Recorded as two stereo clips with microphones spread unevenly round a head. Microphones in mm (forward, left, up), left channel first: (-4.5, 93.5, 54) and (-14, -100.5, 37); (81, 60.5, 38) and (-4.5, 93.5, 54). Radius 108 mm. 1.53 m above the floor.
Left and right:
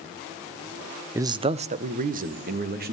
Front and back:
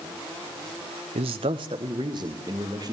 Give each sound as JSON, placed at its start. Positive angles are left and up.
{"t": 1.1, "sound": "a man speaking", "azimuth_deg": -170, "distance_m": 0.8}